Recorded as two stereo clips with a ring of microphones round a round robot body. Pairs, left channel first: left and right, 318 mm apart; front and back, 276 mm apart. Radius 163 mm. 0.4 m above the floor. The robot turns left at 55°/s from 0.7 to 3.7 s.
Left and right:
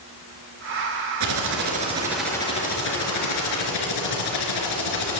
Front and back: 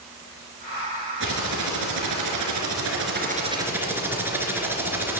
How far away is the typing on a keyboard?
About 2.5 m.